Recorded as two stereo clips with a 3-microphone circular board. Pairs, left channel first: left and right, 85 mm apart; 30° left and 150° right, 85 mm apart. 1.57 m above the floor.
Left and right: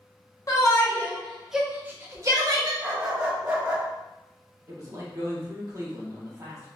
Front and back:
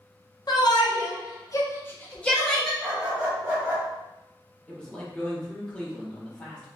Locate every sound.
0.5 s a shout: 55° left, 0.9 m; by 2.7 s 55° right, 1.1 m
2.8 s a dog barking: 110° right, 1.1 m
4.7 s a man speaking: 45° right, 1.2 m